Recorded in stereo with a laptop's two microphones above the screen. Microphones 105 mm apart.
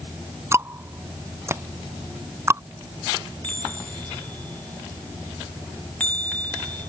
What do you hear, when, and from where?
0.5 s ticking: 25° right (ahead or behind)
3.4 s a chime: 15° left (ahead or behind)